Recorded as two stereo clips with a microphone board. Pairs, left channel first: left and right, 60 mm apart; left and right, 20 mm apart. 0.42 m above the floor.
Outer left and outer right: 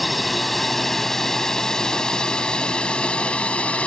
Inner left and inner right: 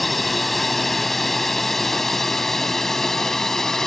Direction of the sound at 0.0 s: Centre (ahead or behind).